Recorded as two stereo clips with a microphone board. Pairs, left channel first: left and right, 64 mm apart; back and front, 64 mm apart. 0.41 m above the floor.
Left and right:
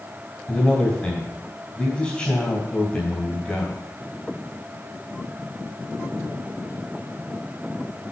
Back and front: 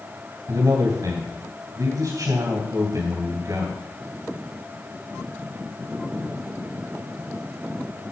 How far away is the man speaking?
About 2.5 m.